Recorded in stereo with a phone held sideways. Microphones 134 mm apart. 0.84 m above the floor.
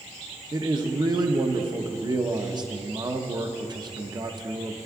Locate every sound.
0.5 s a man speaking: 35° right (ahead or behind), 0.7 m